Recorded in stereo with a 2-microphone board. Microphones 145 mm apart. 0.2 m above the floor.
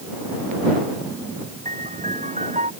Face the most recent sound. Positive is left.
turn(degrees=-55)  # may be behind; listen again after turning